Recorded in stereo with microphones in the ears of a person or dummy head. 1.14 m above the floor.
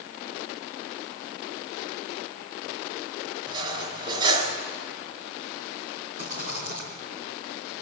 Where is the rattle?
45° right (ahead or behind), 4 m.